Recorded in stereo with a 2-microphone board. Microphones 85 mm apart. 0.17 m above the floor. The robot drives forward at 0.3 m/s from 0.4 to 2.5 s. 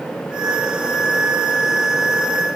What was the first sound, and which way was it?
Only background noise.